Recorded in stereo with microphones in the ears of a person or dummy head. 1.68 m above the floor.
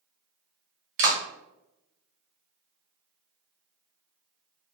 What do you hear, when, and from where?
1.0 s a clap: 50° right (ahead or behind), 0.8 m